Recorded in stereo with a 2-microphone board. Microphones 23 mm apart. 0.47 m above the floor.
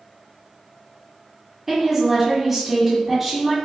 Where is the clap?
I don't hear a clap.